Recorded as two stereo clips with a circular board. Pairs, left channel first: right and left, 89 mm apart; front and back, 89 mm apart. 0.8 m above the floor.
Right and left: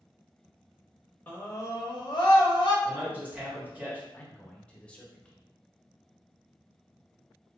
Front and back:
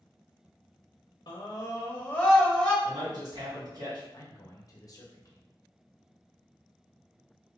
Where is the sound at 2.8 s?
160° left, 1.4 m.